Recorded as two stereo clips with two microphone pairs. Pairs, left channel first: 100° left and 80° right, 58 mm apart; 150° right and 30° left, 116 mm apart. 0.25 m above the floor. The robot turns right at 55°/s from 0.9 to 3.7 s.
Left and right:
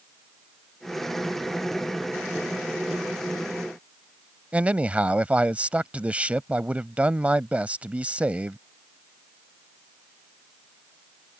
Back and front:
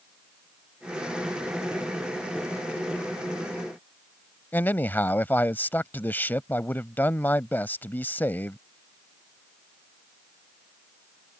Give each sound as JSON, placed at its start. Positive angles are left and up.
{"t": 4.5, "sound": "a man speaking", "azimuth_deg": -105}